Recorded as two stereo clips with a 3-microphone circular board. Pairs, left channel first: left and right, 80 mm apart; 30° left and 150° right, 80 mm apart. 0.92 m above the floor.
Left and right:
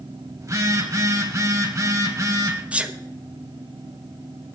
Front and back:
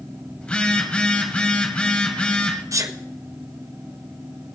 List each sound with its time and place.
0.4 s a phone buzzing: 45° right, 1.8 m
2.7 s a sneeze: 155° right, 1.0 m